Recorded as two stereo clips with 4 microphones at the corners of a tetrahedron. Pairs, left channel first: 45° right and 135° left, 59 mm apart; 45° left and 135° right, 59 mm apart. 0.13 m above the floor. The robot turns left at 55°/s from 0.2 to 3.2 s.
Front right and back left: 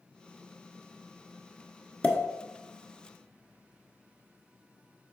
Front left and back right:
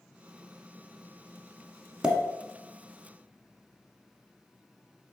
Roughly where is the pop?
Right.